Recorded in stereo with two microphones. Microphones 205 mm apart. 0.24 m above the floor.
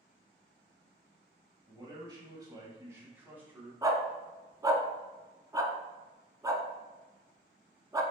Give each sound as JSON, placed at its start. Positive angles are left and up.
{"t": 1.7, "sound": "a man speaking", "side_deg": -25, "distance_m": 1.0}
{"t": 3.8, "sound": "a dog barking", "side_deg": -20, "distance_m": 0.5}